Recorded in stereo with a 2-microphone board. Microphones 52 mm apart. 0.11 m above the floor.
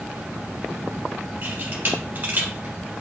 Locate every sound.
1.4 s a camera shutter: 40° right (ahead or behind), 2.5 m